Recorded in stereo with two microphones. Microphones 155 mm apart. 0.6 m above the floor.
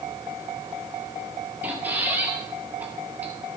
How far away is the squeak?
About 1.6 m.